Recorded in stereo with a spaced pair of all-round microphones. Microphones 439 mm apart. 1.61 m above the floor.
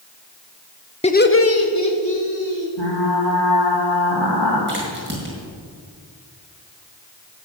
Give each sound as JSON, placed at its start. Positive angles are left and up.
{"t": 1.0, "sound": "laughter", "side_deg": 15, "distance_m": 0.6}
{"t": 2.8, "sound": "frying", "side_deg": 70, "distance_m": 2.5}
{"t": 4.7, "sound": "a crack", "side_deg": -25, "distance_m": 5.5}